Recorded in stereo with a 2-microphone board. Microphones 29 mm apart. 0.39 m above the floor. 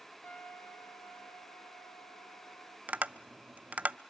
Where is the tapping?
55° right (ahead or behind), 0.5 m.